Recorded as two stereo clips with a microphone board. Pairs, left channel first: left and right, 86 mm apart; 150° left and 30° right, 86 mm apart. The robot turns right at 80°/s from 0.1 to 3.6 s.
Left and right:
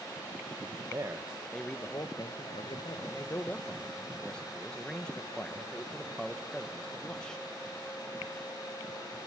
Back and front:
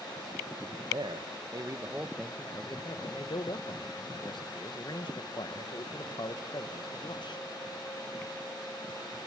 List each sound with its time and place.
0.9 s a man speaking: 45° right, 1.4 m; by 7.4 s 170° left, 1.4 m